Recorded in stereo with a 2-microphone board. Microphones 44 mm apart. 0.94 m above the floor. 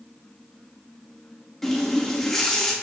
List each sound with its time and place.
1.6 s a running tap: 5° left (ahead or behind), 0.8 m